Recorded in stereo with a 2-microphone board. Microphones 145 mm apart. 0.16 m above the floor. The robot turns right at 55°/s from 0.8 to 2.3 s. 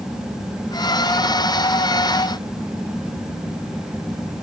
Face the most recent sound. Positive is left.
No sound to turn to.